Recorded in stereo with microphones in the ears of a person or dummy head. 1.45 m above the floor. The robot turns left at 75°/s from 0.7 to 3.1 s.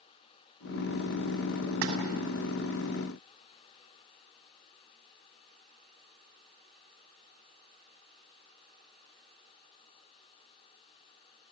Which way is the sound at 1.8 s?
75° right (ahead or behind).